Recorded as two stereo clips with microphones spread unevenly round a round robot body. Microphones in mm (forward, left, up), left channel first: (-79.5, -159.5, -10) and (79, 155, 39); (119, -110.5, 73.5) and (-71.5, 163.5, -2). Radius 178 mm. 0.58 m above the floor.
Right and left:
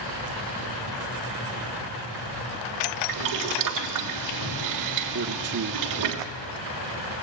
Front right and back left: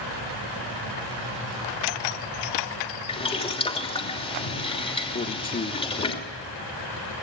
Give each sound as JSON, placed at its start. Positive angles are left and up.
{"t": 3.1, "sound": "boiling", "azimuth_deg": 25, "distance_m": 3.0}
{"t": 5.1, "sound": "a man speaking", "azimuth_deg": 15, "distance_m": 1.3}